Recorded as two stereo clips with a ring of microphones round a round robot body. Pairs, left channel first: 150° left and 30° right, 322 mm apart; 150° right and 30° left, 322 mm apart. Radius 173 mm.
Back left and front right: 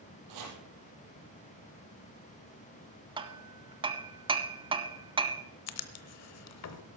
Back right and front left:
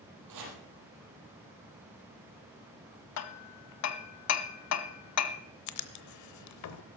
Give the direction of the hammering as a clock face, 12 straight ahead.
4 o'clock.